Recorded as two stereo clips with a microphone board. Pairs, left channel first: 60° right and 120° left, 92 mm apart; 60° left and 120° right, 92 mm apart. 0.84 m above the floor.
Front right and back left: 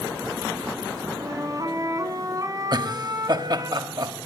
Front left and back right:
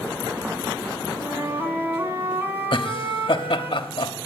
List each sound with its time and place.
1.2 s a flute: 175° left, 2.5 m
2.7 s laughter: 80° left, 1.3 m